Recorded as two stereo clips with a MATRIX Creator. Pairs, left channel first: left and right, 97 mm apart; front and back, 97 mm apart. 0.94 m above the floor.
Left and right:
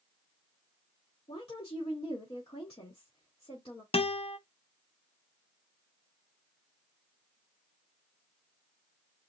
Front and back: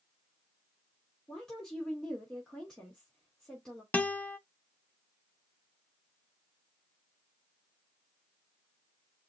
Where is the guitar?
75° left, 0.5 m.